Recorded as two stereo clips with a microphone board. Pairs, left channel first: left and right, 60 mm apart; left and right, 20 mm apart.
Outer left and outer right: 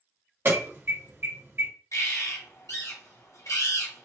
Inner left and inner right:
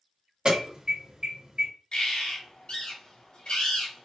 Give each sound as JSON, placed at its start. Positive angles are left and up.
{"t": 0.5, "sound": "an alarm", "side_deg": -45, "distance_m": 2.5}
{"t": 1.9, "sound": "a bird", "side_deg": 60, "distance_m": 2.5}